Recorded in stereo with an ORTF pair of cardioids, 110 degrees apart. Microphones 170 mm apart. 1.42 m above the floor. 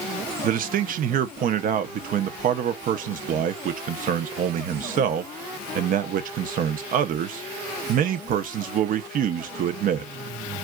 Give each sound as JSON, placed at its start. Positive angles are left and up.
{"t": 0.4, "sound": "a man speaking", "azimuth_deg": -60, "distance_m": 0.7}